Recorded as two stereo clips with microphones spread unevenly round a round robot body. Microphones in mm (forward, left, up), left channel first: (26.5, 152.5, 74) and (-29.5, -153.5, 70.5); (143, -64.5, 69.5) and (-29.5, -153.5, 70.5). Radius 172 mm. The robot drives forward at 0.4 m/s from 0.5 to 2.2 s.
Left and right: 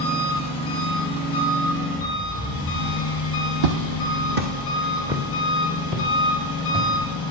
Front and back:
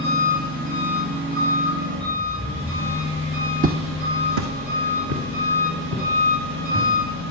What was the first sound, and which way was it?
An engine running, 150° left.